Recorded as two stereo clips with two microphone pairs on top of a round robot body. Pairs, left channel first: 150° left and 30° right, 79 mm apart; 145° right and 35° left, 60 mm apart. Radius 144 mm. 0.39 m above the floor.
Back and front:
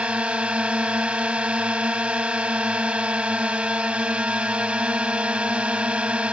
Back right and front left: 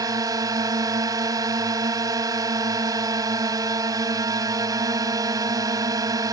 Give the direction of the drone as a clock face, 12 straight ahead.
10 o'clock.